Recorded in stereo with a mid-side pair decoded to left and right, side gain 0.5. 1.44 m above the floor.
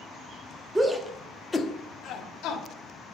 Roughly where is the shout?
Ahead.